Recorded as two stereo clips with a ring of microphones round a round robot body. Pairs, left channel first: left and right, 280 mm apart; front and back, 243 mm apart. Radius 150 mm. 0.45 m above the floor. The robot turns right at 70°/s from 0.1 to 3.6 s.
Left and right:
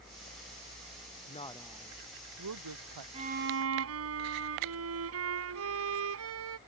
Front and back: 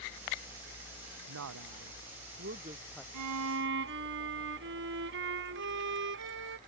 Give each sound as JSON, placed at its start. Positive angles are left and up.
{"t": 1.3, "sound": "a woman speaking", "azimuth_deg": 150}
{"t": 3.1, "sound": "a violin", "azimuth_deg": -160}